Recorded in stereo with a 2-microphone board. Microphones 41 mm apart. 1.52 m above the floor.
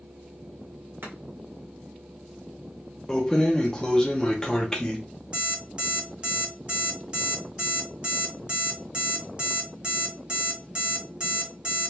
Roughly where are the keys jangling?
Centre.